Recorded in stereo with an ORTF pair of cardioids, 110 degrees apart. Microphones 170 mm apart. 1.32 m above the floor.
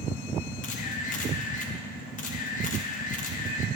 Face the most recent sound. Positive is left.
turn(degrees=50)